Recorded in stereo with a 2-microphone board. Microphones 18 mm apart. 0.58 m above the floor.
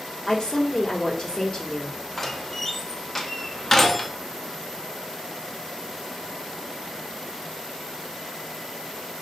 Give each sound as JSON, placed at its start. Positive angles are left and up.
{"t": 0.3, "sound": "a woman speaking", "side_deg": 40, "distance_m": 1.6}
{"t": 2.2, "sound": "a door slam", "side_deg": 15, "distance_m": 0.6}